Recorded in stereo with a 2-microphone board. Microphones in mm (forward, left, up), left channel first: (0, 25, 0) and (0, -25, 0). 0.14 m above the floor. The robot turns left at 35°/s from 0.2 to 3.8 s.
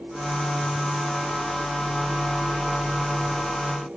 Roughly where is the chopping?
I don't hear chopping.